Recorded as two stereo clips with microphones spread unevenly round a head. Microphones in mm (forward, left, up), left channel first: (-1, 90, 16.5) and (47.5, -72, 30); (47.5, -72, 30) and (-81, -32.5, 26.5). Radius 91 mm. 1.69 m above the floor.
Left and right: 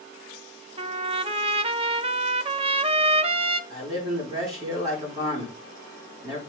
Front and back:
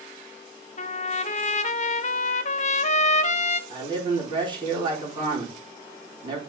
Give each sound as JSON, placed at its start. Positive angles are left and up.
{"t": 0.8, "sound": "a trumpet", "azimuth_deg": -30, "distance_m": 0.5}
{"t": 3.7, "sound": "a man speaking", "azimuth_deg": -145, "distance_m": 4.5}